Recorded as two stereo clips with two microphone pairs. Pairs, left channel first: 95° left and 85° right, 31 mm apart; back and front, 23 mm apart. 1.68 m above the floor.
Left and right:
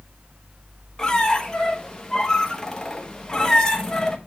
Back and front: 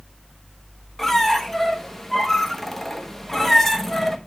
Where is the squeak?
110° left, 1.0 m.